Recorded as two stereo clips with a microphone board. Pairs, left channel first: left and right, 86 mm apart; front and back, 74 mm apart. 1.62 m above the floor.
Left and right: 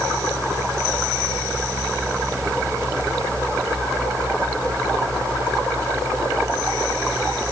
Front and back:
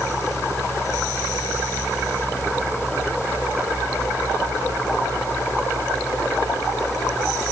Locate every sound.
Only background noise.